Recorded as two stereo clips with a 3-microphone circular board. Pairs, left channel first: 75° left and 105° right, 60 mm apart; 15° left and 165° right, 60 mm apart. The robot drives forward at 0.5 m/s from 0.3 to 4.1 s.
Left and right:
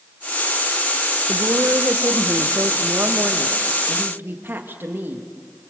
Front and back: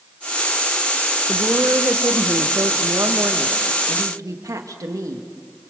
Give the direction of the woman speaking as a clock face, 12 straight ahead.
4 o'clock.